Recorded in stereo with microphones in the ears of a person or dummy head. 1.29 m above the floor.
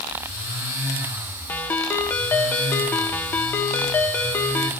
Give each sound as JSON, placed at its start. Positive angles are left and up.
{"t": 1.5, "sound": "a ringtone", "side_deg": 15, "distance_m": 1.2}